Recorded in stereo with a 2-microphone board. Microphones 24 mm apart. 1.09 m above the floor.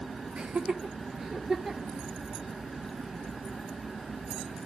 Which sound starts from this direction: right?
Laughter, at 0.4 s.